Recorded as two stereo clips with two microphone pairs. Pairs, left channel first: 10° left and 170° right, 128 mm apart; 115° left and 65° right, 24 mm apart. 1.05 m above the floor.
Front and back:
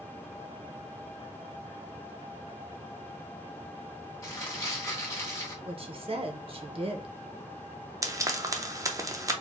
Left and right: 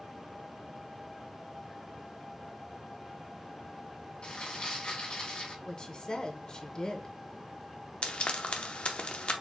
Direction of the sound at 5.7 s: 165° left.